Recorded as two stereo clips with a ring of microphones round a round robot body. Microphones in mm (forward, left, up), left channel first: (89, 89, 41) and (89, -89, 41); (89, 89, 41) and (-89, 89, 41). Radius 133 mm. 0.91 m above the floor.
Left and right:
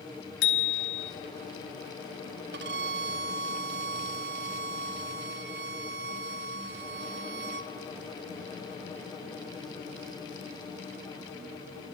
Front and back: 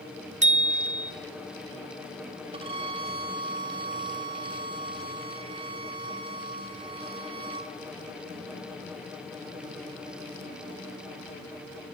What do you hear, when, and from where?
0.4 s a bicycle bell: 130° left, 2 m
2.5 s a violin: 115° right, 1.3 m